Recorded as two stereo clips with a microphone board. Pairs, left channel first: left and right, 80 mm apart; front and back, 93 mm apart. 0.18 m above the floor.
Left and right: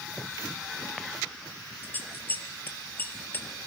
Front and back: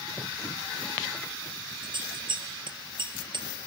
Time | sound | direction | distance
1.8 | scissors | 155° left | 3 m